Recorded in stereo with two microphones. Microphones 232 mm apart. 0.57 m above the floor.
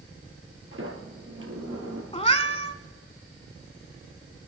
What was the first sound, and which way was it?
A sliding door, 60° right (ahead or behind).